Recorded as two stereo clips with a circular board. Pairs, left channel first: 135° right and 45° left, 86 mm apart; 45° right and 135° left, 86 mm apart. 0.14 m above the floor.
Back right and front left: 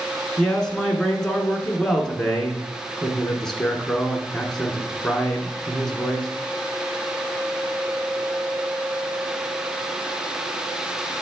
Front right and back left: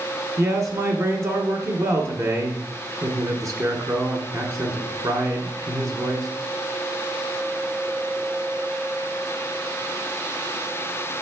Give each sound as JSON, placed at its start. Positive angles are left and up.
{"t": 0.4, "sound": "a man speaking", "azimuth_deg": 145, "distance_m": 1.6}